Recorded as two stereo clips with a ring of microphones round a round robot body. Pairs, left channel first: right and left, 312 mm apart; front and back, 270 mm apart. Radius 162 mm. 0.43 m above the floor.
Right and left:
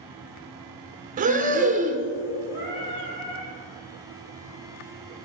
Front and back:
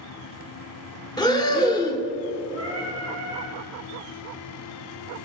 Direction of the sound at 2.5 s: 70° right.